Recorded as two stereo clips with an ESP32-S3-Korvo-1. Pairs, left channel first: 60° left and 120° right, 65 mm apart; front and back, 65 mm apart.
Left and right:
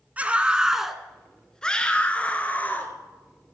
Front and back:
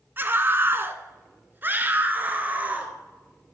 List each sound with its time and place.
0.2 s a scream: 170° right, 1.3 m; by 2.9 s 120° left, 2.5 m